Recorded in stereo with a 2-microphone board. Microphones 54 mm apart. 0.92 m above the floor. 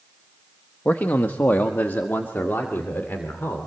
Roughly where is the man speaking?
Left.